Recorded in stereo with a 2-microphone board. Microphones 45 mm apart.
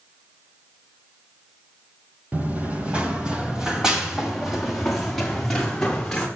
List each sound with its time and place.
2.3 s running footsteps: 35° right (ahead or behind), 4 m; by 6.3 s 10° left (ahead or behind), 7 m